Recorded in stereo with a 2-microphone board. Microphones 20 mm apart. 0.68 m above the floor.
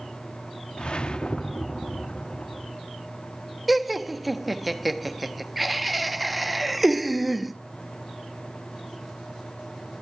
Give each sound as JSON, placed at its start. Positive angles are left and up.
{"t": 0.8, "sound": "a whoosh", "side_deg": 55, "distance_m": 0.8}
{"t": 3.7, "sound": "laughter", "side_deg": 0, "distance_m": 1.2}